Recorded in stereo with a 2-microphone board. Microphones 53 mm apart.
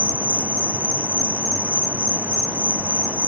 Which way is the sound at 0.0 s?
50° right (ahead or behind).